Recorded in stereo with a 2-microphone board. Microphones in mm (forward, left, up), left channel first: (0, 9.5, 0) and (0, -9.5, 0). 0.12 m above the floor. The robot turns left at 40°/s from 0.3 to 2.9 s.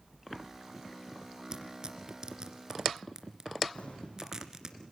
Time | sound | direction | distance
1.5 | tearing paper | 35° right (ahead or behind) | 2 m
3.8 | an explosion | 75° left (ahead or behind) | 6.5 m